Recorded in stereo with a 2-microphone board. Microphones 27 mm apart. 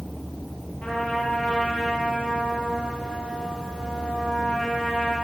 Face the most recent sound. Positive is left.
turn(degrees=60)  # may be behind; listen again after turning